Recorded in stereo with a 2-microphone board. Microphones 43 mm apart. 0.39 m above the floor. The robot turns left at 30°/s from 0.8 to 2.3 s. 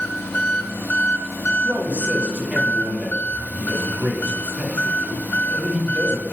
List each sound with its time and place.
0.0 s an engine running: 100° left, 0.8 m; by 6.3 s 55° left, 0.8 m
1.6 s a man speaking: 35° right (ahead or behind), 1.2 m; by 6.3 s 25° right (ahead or behind), 1.2 m